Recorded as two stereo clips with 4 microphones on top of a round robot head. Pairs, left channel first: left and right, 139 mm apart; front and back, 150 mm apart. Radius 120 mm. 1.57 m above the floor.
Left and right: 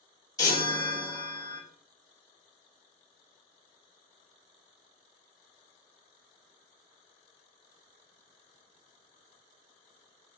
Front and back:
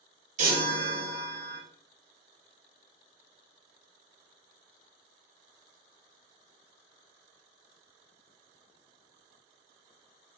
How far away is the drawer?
No drawer in this recording.